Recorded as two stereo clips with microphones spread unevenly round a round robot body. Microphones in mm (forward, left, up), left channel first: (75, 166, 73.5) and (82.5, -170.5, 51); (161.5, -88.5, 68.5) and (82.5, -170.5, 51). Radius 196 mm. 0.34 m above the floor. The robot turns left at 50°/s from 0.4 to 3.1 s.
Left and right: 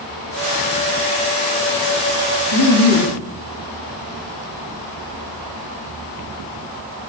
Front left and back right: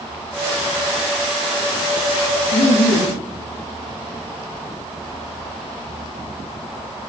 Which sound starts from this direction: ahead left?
Laughter, at 2.5 s.